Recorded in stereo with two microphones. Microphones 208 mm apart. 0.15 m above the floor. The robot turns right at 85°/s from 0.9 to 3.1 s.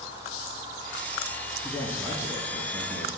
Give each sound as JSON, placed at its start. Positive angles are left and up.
{"t": 1.6, "sound": "a man speaking", "azimuth_deg": -175, "distance_m": 1.2}